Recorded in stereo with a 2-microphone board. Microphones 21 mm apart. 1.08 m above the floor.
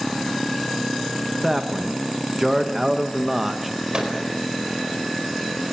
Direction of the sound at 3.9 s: 45° right (ahead or behind).